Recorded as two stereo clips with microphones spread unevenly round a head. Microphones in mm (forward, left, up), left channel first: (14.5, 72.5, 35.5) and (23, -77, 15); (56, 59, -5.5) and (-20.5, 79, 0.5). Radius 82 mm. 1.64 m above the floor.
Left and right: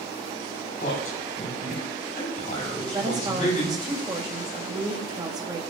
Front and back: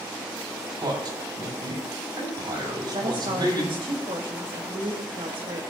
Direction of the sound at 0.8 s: 145° left.